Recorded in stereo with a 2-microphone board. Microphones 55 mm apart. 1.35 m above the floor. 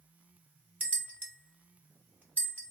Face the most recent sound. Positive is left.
turn(degrees=-25)  # may be behind; listen again after turning